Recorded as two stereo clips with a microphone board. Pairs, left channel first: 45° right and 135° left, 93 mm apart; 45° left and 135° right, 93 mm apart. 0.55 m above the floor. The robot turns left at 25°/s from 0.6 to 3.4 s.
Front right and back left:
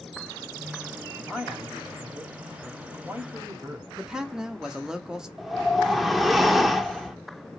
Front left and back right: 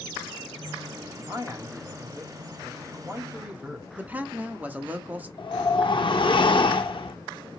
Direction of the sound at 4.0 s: 160° right.